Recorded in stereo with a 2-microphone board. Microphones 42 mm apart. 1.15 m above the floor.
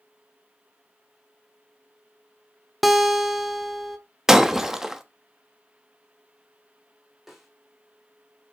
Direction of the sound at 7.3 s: 5° right (ahead or behind).